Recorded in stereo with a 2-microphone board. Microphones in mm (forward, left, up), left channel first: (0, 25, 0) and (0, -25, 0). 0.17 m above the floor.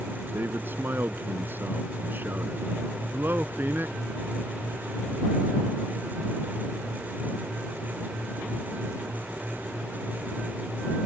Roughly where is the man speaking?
Right.